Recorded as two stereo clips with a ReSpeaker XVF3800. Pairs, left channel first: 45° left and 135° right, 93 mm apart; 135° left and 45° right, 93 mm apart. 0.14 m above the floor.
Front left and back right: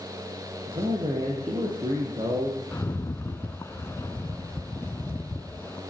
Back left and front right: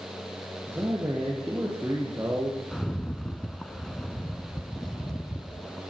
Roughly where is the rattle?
Ahead left.